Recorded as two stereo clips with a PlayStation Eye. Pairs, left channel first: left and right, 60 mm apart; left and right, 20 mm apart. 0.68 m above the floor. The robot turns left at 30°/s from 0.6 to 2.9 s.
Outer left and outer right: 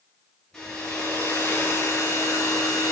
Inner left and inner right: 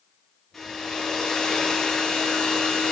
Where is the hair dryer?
165° left, 5.5 m; by 2.9 s 95° left, 5.5 m.